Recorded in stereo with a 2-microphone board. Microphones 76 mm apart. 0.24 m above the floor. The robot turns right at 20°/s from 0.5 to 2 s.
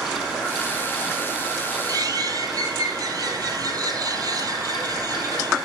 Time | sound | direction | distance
1.9 | a bird | 50° right (ahead or behind) | 1.1 m